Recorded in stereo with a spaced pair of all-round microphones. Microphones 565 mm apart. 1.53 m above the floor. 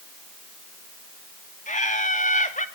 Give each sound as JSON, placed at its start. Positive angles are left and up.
{"t": 1.7, "sound": "laughter", "side_deg": 15, "distance_m": 2.5}